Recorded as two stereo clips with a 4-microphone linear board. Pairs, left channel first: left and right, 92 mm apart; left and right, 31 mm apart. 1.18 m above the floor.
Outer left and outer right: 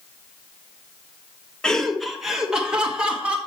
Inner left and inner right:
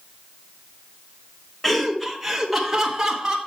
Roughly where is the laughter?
Centre.